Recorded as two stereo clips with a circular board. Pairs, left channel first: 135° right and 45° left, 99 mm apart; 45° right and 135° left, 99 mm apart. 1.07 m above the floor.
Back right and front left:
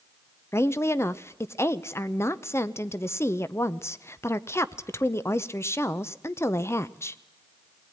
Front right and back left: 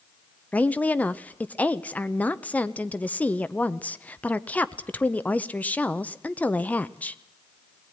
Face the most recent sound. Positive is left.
turn(degrees=-105)